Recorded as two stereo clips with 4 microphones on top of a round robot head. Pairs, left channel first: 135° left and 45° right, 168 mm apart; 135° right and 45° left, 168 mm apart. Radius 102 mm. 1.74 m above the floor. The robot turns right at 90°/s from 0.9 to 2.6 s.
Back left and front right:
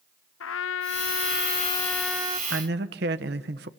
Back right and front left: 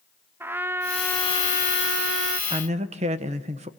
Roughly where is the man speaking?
Ahead.